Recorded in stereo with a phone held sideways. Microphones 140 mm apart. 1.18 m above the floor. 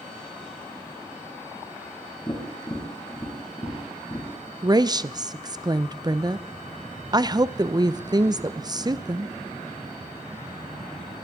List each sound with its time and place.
2.3 s tapping: 20° left (ahead or behind), 7.5 m
4.6 s a woman speaking: 30° right (ahead or behind), 0.6 m